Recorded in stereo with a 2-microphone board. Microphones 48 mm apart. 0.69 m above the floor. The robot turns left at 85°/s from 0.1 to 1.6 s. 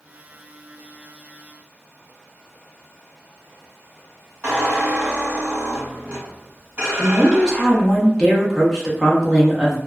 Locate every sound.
4.4 s a squeak: 25° right (ahead or behind), 1.4 m
7.0 s a woman speaking: 10° left (ahead or behind), 0.8 m